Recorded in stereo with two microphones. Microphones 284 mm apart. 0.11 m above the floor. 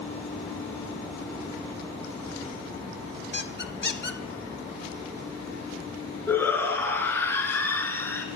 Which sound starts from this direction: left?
A squeak, at 3.3 s.